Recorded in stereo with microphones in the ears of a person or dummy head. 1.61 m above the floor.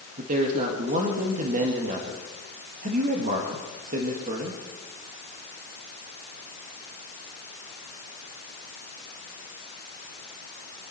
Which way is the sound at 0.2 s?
40° right (ahead or behind).